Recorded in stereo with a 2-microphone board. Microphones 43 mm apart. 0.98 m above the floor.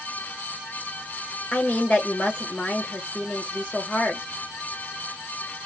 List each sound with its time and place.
1.5 s a woman speaking: 30° left (ahead or behind), 1.2 m